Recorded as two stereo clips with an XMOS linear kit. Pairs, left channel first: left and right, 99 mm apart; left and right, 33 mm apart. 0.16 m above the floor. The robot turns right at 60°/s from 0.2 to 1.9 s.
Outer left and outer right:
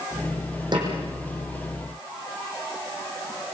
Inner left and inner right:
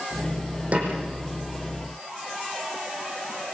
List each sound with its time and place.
0.7 s a snare drum: 50° right (ahead or behind), 6.5 m; by 0.9 s 40° right (ahead or behind), 6.5 m